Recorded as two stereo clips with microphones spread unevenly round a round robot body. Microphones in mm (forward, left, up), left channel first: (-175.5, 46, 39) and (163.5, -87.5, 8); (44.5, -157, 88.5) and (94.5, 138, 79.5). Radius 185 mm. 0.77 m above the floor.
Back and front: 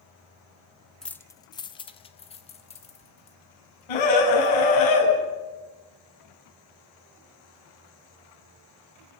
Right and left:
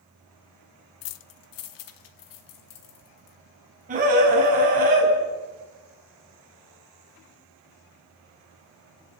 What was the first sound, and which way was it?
Keys jangling, 110° right.